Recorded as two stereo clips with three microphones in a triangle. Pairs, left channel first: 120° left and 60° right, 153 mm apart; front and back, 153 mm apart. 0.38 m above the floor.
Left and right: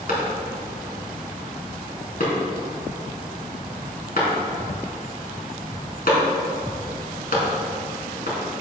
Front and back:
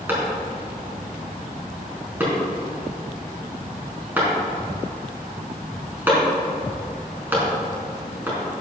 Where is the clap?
105° left, 3.5 m.